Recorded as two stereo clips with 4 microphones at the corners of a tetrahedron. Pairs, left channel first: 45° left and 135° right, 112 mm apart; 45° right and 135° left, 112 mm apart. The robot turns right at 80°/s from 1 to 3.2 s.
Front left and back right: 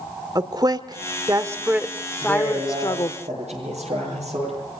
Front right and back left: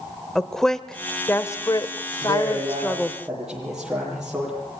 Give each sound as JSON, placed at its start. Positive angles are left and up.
{"t": 0.3, "sound": "a woman speaking", "azimuth_deg": -130, "distance_m": 1.3}
{"t": 2.2, "sound": "a man speaking", "azimuth_deg": 140, "distance_m": 9.5}